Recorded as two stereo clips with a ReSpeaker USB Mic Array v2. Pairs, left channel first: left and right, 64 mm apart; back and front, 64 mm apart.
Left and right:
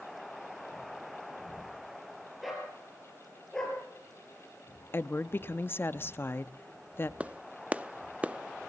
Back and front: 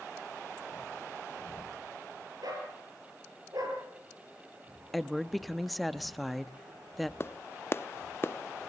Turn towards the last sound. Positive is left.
turn(degrees=-150)